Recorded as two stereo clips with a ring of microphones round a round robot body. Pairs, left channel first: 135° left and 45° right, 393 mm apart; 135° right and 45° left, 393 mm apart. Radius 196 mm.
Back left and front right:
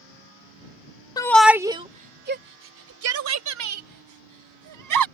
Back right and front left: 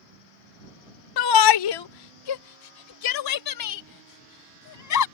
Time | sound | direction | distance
1.2 | a shout | 145° right | ?